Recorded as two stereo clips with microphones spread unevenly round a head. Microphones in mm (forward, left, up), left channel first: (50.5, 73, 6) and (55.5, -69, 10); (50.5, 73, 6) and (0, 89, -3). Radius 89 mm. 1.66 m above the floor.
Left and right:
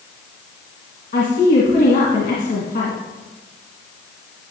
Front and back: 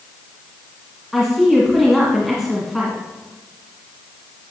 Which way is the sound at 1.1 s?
70° left.